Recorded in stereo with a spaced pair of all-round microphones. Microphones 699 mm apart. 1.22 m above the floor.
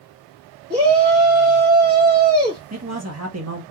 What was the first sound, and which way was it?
A shout, 15° right (ahead or behind).